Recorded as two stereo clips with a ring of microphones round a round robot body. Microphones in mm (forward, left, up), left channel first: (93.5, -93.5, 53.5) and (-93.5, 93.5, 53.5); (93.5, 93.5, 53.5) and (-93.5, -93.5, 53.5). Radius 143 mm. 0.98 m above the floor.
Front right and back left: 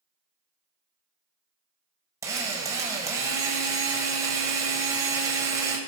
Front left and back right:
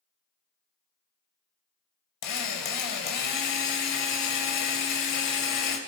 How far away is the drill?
About 2 m.